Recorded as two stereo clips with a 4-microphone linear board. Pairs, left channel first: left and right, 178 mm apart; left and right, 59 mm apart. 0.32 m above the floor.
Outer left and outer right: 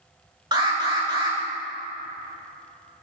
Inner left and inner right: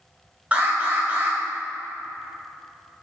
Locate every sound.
0.5 s an alarm: 25° right (ahead or behind), 2 m